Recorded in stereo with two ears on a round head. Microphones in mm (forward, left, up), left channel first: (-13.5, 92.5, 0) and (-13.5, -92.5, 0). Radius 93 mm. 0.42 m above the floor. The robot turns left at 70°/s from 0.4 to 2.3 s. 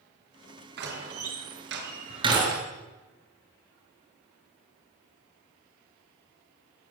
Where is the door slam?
50° right (ahead or behind), 6 m; by 2.6 s 20° right (ahead or behind), 6 m.